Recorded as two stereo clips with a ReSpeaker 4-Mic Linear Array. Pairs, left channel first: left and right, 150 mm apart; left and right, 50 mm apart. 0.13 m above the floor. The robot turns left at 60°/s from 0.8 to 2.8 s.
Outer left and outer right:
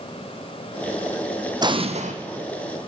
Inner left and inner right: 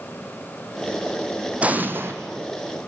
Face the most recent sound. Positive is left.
turn(degrees=-100)